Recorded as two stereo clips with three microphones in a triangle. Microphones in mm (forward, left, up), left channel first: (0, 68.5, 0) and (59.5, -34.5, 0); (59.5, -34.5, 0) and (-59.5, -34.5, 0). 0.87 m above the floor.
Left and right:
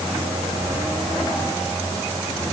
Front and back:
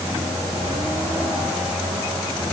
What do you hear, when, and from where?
Only background noise.